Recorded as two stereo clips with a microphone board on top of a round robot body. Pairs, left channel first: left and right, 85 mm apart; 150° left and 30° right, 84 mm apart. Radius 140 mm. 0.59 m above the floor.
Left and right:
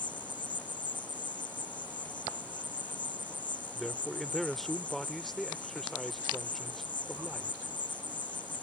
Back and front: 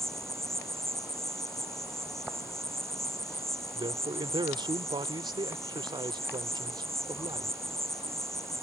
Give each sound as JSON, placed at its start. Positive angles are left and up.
{"t": 0.0, "sound": "an insect", "azimuth_deg": 65}
{"t": 3.8, "sound": "a man speaking", "azimuth_deg": 0}